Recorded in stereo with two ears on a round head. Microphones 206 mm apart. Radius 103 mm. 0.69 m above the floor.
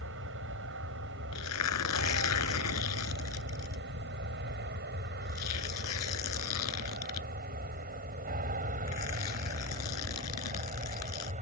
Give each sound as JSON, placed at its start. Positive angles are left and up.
{"t": 0.0, "sound": "an aircraft", "side_deg": -60}
{"t": 1.3, "sound": "tearing paper", "side_deg": 80}